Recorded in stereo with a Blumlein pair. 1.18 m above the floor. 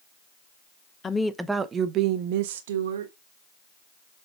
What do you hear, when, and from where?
1.0 s a woman speaking: 15° left, 0.7 m; by 3.1 s 65° right, 1.3 m